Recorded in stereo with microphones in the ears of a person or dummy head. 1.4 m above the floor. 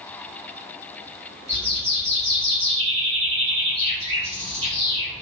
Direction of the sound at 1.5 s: 30° right (ahead or behind).